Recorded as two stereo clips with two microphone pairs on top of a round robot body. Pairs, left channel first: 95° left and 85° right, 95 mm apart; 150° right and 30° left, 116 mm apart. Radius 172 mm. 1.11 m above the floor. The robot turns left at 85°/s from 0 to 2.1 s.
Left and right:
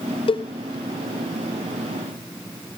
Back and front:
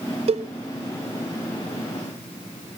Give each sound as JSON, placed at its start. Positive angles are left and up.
{"t": 0.3, "sound": "a cowbell", "azimuth_deg": 65, "distance_m": 0.6}